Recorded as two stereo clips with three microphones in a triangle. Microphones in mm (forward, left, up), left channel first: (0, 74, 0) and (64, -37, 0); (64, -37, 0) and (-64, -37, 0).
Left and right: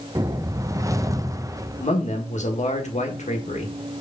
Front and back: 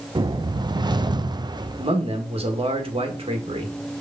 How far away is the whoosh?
About 0.5 m.